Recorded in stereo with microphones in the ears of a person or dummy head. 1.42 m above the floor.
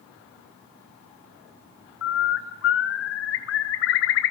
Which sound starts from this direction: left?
A bird, at 2.0 s.